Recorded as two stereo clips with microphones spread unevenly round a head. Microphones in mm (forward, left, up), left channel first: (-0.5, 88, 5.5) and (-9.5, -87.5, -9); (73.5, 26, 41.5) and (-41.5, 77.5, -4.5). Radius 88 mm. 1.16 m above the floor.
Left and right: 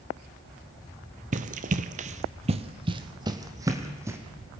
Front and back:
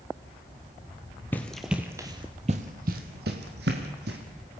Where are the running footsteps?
65° right, 1.4 m; by 4.2 s 170° right, 3 m.